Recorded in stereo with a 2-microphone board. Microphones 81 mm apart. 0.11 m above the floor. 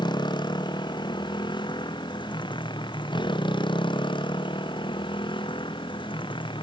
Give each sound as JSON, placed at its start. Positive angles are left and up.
{"t": 0.0, "sound": "a motorcycle", "side_deg": 65}